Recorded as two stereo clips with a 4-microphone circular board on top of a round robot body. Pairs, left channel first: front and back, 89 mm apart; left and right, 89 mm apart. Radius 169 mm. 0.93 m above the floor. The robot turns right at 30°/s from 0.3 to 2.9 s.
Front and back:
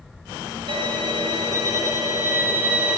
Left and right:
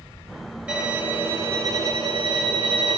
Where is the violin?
160° right, 6.5 m; by 3.0 s 95° right, 6.5 m.